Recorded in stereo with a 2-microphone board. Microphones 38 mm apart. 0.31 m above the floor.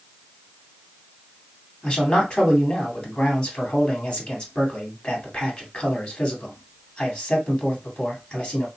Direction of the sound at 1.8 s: 30° left (ahead or behind).